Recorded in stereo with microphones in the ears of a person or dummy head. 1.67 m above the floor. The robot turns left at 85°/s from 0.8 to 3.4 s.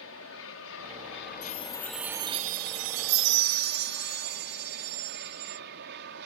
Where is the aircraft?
100° left; by 6.3 s 120° right.